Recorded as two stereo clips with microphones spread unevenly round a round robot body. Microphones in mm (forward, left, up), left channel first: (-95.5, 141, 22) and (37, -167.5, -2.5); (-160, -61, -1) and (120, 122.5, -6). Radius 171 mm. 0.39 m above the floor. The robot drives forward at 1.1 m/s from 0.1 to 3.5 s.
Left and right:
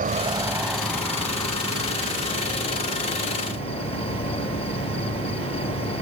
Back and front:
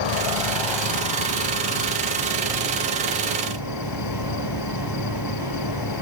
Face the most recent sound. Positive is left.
turn(degrees=-175)